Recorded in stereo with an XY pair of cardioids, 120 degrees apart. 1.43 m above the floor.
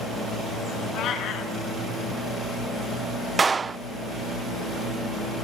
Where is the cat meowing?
65° left, 7 m.